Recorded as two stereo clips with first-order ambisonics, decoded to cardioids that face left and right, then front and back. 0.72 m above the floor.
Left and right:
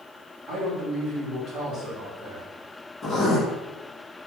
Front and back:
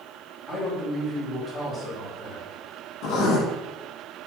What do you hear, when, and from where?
0.5 s a man speaking: 75° right, 1.4 m
3.0 s writing: straight ahead, 1.0 m